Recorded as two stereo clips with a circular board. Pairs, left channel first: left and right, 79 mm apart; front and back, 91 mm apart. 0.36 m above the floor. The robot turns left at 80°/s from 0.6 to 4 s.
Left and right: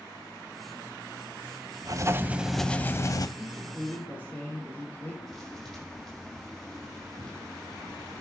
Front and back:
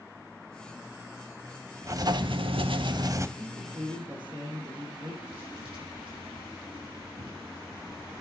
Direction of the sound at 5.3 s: 175° left.